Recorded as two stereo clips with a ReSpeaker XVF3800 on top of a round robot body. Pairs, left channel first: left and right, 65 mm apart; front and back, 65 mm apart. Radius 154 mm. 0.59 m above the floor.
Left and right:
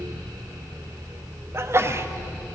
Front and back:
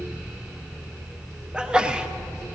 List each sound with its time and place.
1.5 s a sneeze: 110° right, 0.9 m